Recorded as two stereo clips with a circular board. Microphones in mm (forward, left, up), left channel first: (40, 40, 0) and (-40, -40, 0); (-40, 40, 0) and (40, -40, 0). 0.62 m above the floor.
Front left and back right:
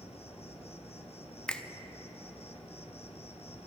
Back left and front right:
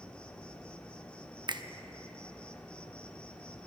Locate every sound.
0.0 s an insect: 55° left, 0.8 m
1.5 s a finger snap: 35° right, 0.6 m